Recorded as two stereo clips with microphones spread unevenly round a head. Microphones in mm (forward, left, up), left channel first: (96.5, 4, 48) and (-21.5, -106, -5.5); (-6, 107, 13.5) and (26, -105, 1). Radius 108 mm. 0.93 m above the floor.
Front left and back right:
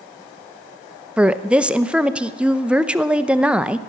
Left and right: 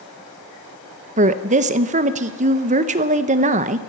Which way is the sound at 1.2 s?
90° right.